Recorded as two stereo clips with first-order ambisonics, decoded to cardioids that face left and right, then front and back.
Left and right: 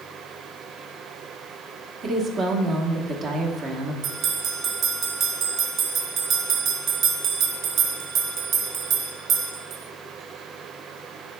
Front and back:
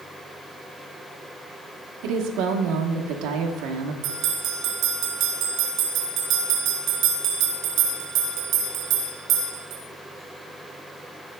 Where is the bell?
140° right, 1.1 m.